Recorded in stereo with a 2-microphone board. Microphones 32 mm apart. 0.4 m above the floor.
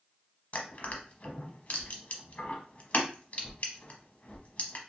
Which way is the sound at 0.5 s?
50° left (ahead or behind).